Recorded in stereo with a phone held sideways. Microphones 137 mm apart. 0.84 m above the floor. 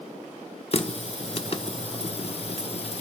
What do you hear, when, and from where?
0.7 s a running tap: 45° left (ahead or behind), 1.0 m